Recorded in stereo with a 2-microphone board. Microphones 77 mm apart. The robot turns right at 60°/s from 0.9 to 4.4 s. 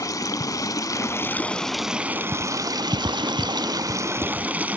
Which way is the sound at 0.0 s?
130° left.